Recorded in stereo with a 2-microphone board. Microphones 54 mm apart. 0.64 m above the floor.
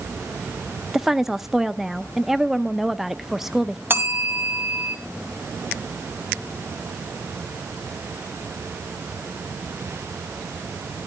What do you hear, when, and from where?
0.9 s a woman speaking: 5° right (ahead or behind), 0.7 m
3.9 s a bell: 40° right (ahead or behind), 1.5 m